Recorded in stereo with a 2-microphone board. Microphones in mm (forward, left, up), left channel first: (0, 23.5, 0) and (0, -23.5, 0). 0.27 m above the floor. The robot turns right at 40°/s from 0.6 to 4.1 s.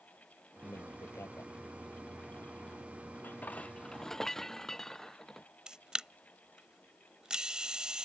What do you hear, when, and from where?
0.6 s a man speaking: 80° left; by 1.5 s 115° left
3.2 s dishes clattering: 135° left; by 5.5 s 170° left
5.7 s a camera shutter: 20° right (ahead or behind)